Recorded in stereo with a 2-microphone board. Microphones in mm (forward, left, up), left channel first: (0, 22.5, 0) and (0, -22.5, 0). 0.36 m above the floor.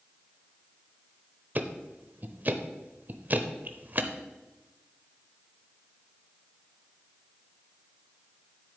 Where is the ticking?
40° right (ahead or behind), 0.7 m.